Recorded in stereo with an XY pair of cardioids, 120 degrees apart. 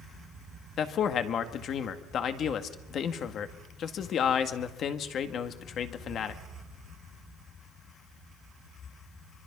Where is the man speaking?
55° left, 2.0 m.